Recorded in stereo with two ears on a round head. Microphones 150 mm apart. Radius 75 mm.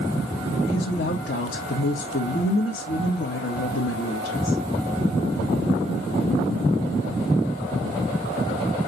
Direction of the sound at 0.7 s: 60° left (ahead or behind).